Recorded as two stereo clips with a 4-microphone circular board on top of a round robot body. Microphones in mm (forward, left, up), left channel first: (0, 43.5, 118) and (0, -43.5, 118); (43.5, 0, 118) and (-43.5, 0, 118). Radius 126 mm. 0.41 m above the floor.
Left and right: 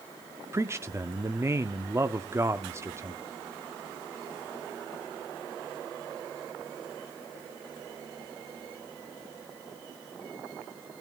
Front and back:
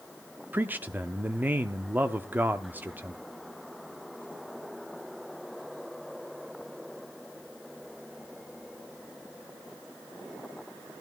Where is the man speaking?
125° right, 0.9 m.